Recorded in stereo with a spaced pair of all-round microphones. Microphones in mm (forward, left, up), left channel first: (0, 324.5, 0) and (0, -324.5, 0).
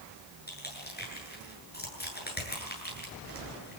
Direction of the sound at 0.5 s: 15° left (ahead or behind).